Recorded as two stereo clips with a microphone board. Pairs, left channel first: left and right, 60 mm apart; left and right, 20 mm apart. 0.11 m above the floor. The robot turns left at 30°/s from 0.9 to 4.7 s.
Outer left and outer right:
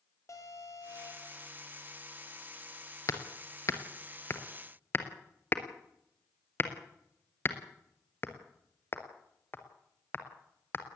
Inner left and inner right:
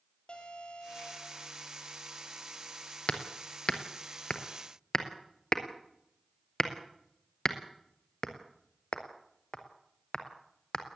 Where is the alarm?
55° left (ahead or behind), 4 m; by 1.4 s 60° left (ahead or behind), 4 m.